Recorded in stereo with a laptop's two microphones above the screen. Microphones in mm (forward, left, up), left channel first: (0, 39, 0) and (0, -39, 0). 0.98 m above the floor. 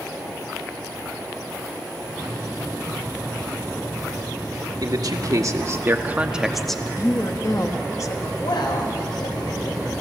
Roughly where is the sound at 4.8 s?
Right.